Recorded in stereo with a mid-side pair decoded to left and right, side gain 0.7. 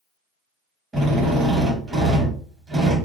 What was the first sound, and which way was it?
A drill, 25° right.